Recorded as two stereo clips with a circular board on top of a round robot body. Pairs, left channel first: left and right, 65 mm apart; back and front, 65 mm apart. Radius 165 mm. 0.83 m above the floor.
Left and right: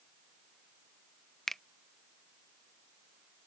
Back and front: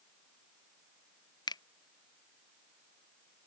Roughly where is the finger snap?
Behind.